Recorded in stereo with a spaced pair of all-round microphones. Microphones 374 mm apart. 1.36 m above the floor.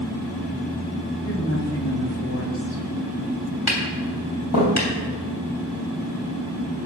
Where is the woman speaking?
35° left (ahead or behind), 2.5 m.